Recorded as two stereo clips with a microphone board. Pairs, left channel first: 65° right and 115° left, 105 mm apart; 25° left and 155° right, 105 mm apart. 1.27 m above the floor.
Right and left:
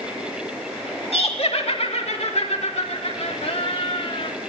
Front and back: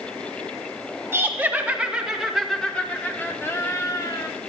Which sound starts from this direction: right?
Laughter, at 1.1 s.